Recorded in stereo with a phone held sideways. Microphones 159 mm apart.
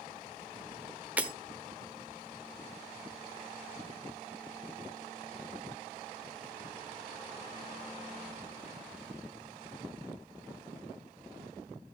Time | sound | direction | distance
1.2 | breaking glass | 10° right (ahead or behind) | 1.2 m